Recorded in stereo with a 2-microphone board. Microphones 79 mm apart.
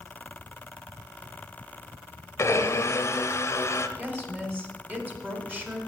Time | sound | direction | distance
2.4 | a blender | 40° left (ahead or behind) | 0.7 m
4.0 | a woman speaking | 25° right (ahead or behind) | 1.4 m